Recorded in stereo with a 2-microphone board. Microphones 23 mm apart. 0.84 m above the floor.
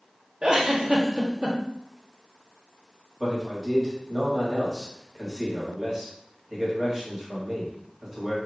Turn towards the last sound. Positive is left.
turn(degrees=-15)  # may be behind; listen again after turning